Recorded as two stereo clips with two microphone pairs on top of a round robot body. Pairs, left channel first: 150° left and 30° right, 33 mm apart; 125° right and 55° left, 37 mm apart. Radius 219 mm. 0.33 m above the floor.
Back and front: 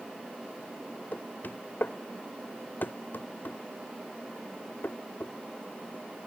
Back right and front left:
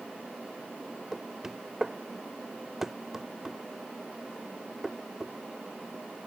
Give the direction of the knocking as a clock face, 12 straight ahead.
8 o'clock.